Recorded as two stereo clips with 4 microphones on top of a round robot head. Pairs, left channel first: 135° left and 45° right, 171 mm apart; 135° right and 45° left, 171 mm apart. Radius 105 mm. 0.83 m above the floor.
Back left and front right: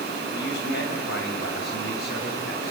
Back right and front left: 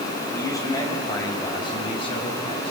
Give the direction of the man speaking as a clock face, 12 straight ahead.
7 o'clock.